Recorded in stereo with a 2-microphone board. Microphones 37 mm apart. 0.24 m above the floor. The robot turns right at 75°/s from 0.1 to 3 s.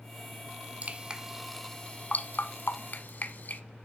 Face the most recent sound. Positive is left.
turn(degrees=50)  # may be behind; listen again after turning